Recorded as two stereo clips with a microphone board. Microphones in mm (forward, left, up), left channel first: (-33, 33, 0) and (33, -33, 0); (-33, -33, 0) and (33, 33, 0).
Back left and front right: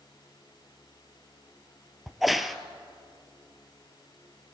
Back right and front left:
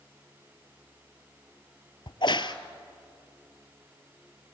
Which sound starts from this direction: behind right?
A crack, at 2.1 s.